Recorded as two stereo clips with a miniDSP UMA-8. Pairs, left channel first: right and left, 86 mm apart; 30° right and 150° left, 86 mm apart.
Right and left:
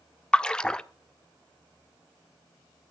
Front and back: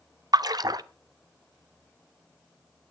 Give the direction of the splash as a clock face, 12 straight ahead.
6 o'clock.